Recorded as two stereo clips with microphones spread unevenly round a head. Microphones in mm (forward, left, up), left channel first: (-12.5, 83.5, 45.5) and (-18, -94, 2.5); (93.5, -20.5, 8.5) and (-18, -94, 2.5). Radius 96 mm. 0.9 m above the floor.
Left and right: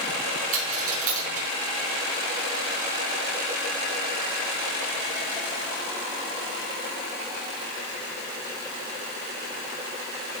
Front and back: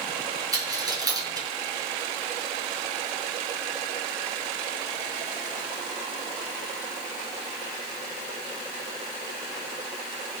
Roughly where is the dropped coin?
Right.